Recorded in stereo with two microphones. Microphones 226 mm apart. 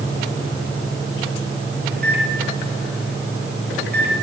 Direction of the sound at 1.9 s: 45° right (ahead or behind).